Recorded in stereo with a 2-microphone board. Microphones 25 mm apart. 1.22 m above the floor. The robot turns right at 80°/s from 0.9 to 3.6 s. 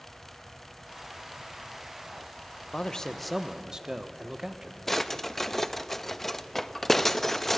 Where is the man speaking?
130° left, 0.9 m; by 4.8 s 160° right, 0.9 m.